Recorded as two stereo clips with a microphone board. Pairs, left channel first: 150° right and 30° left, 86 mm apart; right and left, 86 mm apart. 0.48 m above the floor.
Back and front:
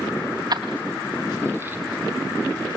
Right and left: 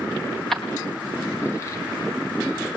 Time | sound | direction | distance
0.5 | keys jangling | 5° right | 2 m